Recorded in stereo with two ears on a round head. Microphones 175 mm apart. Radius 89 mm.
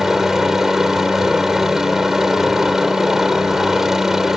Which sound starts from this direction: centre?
A helicopter, at 0.0 s.